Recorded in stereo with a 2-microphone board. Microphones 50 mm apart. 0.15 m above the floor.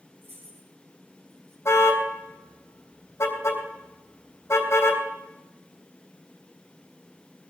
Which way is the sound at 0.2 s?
50° right (ahead or behind).